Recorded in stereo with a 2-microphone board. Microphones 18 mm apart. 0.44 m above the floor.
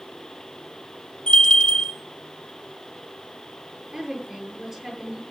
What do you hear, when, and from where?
1.3 s a bell: 70° left (ahead or behind), 2.5 m
3.9 s a woman speaking: 30° right (ahead or behind), 9 m